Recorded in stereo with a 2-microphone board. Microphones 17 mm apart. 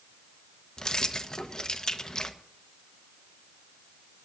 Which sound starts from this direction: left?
Keys jangling, at 0.8 s.